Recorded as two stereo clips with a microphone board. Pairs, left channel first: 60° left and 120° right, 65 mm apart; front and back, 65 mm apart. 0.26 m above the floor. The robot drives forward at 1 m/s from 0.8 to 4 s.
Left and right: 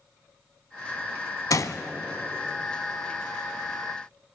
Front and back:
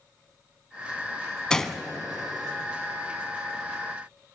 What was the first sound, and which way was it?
A gunshot, 75° left.